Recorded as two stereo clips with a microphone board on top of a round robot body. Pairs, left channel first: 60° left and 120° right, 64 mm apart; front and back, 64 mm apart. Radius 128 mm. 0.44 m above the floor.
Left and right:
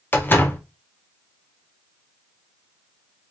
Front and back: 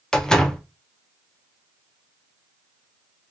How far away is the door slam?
About 0.9 m.